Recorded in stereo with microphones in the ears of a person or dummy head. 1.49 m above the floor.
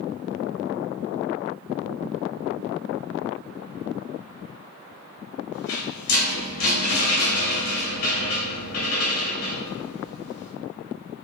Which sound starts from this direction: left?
A rattle, at 5.5 s.